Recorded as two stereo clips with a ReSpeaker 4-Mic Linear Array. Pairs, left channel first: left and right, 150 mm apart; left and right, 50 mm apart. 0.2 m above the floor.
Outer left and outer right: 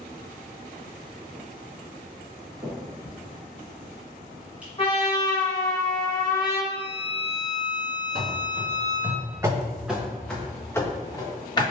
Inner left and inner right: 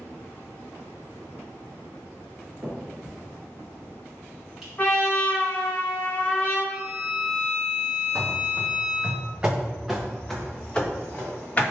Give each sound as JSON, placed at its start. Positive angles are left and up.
{"t": 2.6, "sound": "a finger snap", "side_deg": -10, "distance_m": 1.6}
{"t": 4.8, "sound": "a trumpet", "side_deg": 40, "distance_m": 1.7}
{"t": 6.7, "sound": "a violin", "side_deg": -35, "distance_m": 1.0}
{"t": 8.2, "sound": "running footsteps", "side_deg": -65, "distance_m": 1.1}